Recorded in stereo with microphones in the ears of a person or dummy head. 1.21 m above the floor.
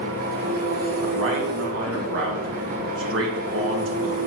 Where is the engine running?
50° right (ahead or behind), 1.2 m.